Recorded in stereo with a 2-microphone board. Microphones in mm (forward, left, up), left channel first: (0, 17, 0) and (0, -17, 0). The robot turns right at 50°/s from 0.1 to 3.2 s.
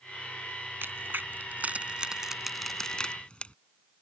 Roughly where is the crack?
Right.